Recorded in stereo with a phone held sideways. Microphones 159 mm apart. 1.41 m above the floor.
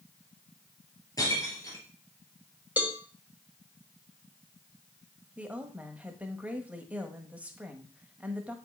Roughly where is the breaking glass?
Left.